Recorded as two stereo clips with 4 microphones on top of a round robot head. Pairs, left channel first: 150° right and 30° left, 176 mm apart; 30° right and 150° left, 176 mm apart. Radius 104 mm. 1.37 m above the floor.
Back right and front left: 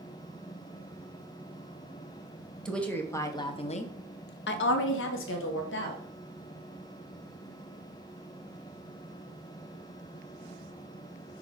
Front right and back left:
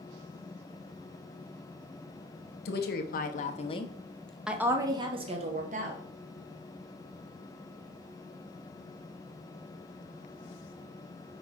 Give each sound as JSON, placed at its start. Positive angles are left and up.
{"t": 2.6, "sound": "a woman speaking", "azimuth_deg": -60, "distance_m": 1.1}